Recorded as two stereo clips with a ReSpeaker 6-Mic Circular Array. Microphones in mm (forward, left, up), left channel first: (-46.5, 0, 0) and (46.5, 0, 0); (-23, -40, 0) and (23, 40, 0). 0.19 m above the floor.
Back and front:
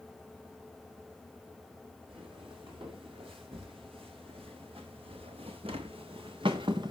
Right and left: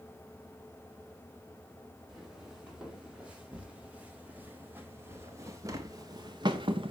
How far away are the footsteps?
About 4 m.